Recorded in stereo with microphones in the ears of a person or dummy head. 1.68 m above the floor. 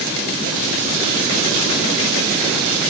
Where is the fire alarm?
I don't hear a fire alarm.